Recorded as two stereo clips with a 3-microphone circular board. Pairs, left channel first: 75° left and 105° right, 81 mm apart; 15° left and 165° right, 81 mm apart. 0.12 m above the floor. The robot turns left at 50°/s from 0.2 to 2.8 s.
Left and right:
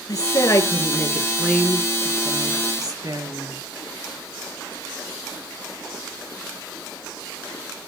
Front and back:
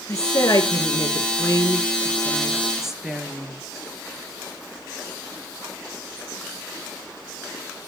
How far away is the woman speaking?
About 2.5 m.